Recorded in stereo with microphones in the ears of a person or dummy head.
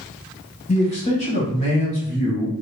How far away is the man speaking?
About 1.1 m.